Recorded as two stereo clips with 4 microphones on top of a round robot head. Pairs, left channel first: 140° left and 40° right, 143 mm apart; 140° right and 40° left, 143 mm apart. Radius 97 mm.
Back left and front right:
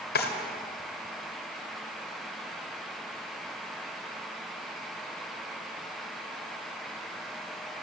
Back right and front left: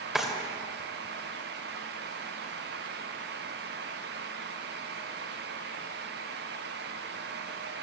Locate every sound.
0.1 s a drawer: 125° left, 2 m